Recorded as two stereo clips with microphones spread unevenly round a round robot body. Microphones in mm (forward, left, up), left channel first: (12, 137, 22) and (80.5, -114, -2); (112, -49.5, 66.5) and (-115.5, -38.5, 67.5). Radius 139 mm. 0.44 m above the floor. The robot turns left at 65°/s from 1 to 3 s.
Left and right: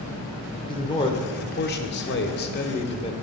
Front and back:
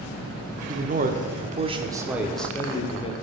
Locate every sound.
0.7 s a man speaking: 175° left, 0.8 m; by 3.1 s 45° left, 0.8 m